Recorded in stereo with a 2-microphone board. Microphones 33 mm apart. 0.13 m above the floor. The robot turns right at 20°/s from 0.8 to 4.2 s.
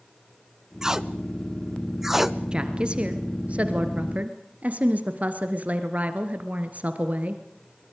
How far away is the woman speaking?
About 2.5 m.